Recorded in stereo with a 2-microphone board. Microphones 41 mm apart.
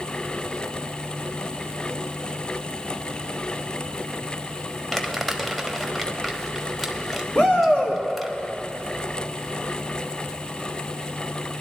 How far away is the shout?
About 3 m.